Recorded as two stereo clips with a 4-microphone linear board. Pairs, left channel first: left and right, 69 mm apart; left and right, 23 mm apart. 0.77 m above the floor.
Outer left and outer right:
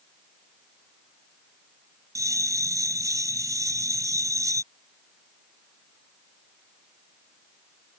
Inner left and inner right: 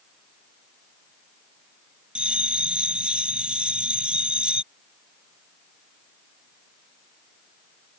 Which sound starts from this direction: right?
A bell, at 2.1 s.